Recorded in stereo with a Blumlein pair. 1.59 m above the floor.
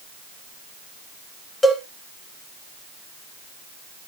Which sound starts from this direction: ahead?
A cowbell, at 1.6 s.